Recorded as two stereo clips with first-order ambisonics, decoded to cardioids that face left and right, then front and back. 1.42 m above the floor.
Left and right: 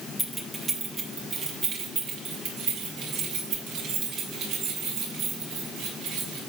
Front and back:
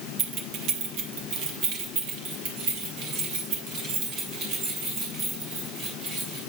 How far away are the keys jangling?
About 1.1 m.